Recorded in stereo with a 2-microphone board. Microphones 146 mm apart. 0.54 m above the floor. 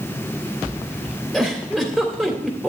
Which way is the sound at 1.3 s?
5° left (ahead or behind).